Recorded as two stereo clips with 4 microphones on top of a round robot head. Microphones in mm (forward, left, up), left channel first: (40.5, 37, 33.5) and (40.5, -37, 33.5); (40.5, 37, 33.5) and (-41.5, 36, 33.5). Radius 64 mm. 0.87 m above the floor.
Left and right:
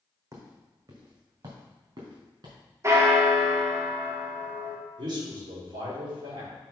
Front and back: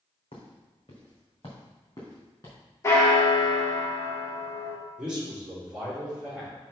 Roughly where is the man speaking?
Right.